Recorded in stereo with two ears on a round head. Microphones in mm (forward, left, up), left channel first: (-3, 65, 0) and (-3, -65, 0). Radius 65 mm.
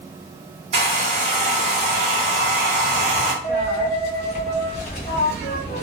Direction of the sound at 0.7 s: 50° right (ahead or behind).